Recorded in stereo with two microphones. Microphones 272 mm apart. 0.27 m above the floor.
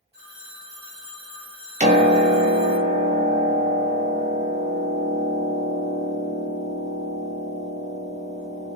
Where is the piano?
25° right (ahead or behind), 0.8 m.